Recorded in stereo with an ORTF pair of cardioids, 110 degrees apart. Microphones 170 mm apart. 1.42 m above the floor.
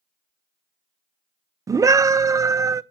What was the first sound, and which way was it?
A scream, 20° right.